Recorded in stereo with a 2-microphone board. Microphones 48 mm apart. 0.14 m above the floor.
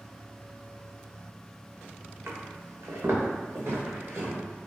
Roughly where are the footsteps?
Right.